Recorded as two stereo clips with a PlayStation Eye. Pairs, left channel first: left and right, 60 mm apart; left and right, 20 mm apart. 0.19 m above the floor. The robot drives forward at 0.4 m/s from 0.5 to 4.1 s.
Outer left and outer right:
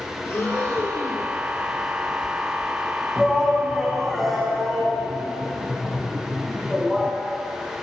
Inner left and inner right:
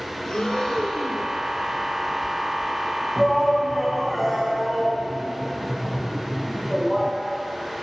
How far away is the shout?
About 1.1 m.